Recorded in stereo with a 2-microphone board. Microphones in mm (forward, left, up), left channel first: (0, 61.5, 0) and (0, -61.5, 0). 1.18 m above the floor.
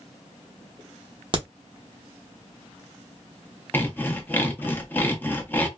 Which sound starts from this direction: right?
A crack, at 1.3 s.